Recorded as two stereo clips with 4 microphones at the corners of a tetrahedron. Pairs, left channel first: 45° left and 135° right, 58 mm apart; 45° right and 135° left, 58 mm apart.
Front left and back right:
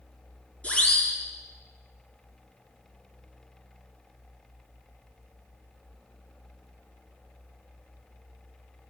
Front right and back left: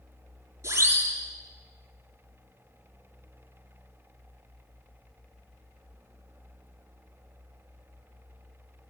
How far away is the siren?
About 7.5 m.